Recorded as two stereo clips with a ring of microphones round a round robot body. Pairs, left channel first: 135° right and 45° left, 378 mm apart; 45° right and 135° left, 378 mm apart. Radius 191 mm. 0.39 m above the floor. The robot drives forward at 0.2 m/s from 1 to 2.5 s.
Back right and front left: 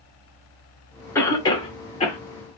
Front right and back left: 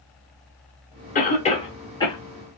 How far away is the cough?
About 0.8 m.